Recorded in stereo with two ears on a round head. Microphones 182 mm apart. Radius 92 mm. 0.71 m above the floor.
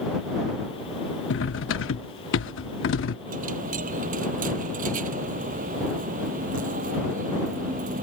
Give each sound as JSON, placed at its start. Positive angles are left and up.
{"t": 1.3, "sound": "cutlery clinking", "side_deg": 70}
{"t": 3.3, "sound": "a dropped coin", "side_deg": -40}